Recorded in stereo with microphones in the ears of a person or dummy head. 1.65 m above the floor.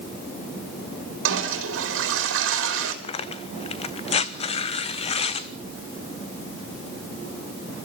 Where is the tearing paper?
35° left (ahead or behind), 1.0 m.